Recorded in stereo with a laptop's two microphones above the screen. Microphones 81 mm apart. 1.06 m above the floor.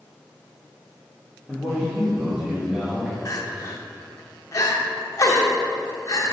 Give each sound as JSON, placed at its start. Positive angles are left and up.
{"t": 1.5, "sound": "a man speaking", "side_deg": -20, "distance_m": 1.2}
{"t": 3.2, "sound": "crying", "side_deg": 45, "distance_m": 1.0}